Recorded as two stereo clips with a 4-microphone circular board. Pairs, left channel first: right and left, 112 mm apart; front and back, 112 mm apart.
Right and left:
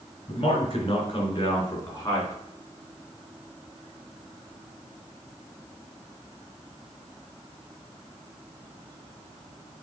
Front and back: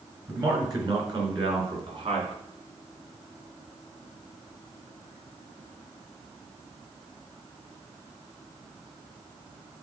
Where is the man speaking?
125° right, 3 m; by 2.3 s 150° right, 3 m.